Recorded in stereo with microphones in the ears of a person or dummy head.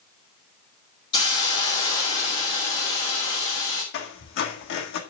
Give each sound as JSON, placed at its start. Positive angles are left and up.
{"t": 1.1, "sound": "a hiss", "side_deg": 30, "distance_m": 2.0}
{"t": 3.9, "sound": "a squeak", "side_deg": 60, "distance_m": 1.5}